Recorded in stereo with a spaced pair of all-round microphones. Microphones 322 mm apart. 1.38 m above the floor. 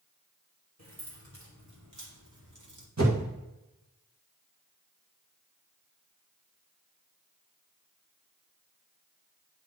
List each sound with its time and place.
0.8 s keys jangling: 55° right (ahead or behind), 3 m; by 2.9 s 70° right (ahead or behind), 1.8 m
3.0 s a whoosh: 55° right (ahead or behind), 1.9 m